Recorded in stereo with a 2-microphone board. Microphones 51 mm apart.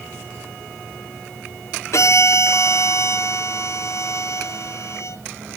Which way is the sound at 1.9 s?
65° left (ahead or behind).